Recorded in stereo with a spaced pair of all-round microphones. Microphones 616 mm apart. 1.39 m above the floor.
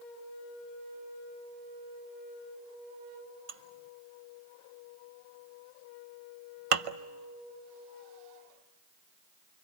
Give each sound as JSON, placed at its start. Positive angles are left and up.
{"t": 3.5, "sound": "dishes clattering", "side_deg": -60, "distance_m": 0.8}